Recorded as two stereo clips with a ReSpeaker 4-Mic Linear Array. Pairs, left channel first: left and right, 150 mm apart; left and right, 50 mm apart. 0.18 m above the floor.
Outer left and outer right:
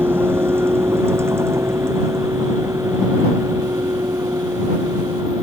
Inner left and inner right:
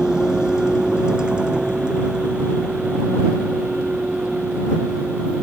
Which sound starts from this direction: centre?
A vehicle, at 0.0 s.